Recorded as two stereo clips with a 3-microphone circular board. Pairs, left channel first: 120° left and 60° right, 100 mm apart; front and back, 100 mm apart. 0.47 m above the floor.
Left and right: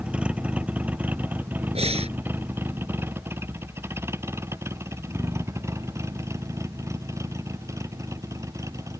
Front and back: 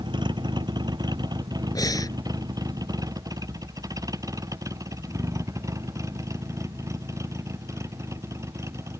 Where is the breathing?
55° right.